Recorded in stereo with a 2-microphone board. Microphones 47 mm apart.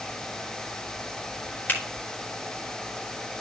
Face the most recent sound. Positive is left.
turn(degrees=40)  # may be behind; listen again after turning